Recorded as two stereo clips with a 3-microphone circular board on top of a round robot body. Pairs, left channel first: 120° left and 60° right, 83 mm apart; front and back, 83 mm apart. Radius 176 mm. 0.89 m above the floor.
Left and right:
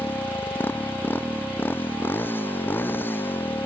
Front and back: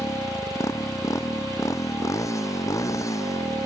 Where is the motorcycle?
55° left.